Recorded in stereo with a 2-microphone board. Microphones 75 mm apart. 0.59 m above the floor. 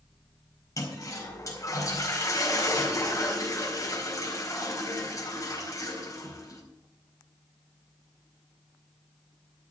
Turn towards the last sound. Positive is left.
turn(degrees=45)  # may be behind; listen again after turning